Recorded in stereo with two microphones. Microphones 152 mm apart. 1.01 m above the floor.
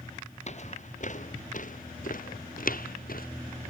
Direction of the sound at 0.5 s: 50° left (ahead or behind).